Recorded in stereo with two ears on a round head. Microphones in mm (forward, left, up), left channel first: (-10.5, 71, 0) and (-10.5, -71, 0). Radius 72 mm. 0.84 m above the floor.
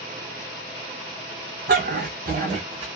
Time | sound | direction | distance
1.7 | a dog barking | 70° right (ahead or behind) | 1.3 m